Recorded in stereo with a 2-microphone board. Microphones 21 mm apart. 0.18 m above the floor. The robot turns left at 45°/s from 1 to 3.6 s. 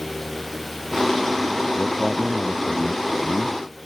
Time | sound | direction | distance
1.8 | a man speaking | 20° left | ?